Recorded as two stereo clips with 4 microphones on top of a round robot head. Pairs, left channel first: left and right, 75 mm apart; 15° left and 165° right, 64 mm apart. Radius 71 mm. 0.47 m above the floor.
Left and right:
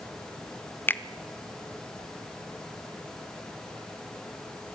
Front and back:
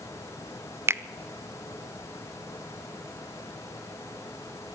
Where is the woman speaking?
I don't hear a woman speaking.